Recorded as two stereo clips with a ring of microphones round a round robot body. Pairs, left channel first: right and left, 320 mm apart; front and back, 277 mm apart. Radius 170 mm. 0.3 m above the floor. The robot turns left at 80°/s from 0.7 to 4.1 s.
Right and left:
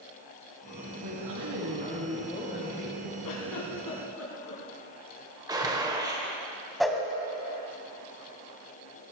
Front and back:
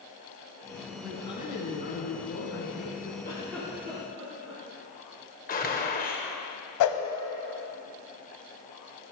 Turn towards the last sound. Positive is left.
turn(degrees=0)